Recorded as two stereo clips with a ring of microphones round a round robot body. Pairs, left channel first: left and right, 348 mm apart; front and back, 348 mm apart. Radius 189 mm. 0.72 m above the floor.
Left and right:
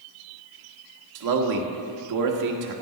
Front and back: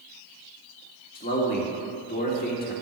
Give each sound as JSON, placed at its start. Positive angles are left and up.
{"t": 1.1, "sound": "a man speaking", "azimuth_deg": -65, "distance_m": 1.9}